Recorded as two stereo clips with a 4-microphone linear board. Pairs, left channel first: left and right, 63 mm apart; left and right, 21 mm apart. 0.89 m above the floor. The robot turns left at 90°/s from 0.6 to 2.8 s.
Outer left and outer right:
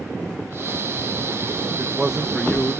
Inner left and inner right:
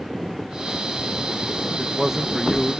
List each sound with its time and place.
1.7 s a man speaking: 135° right; by 2.8 s 125° left